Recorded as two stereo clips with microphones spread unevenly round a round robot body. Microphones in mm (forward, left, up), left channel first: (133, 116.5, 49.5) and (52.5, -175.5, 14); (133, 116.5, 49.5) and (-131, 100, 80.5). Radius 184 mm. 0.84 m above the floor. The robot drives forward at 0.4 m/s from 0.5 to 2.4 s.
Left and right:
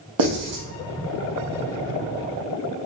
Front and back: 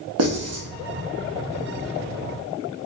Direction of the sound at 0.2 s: 135° right.